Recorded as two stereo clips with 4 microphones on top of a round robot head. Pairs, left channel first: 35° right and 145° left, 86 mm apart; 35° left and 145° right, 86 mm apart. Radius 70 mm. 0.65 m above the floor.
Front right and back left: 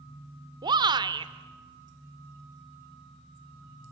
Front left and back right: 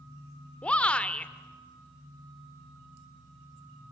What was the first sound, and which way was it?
A shout, 110° left.